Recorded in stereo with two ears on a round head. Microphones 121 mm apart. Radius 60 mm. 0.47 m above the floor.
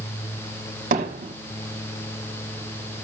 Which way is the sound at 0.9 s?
60° right (ahead or behind).